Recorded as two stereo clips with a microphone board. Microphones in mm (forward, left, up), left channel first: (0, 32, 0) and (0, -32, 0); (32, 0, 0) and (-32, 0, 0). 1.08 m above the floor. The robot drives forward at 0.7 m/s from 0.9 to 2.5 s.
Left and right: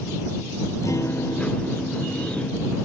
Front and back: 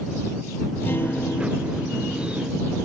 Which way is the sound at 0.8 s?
55° left.